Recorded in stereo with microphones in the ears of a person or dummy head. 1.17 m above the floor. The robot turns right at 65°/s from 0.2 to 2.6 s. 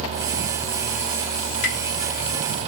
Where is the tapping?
55° left (ahead or behind), 1.1 m.